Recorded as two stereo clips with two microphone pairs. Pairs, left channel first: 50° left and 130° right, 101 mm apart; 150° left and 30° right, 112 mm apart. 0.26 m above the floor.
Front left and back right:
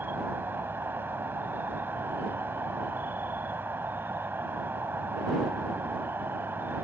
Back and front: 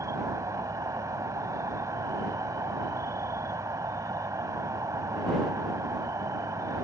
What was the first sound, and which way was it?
An insect, 70° right.